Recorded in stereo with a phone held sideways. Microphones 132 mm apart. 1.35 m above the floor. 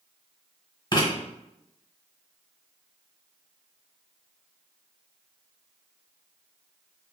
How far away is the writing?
About 1.3 m.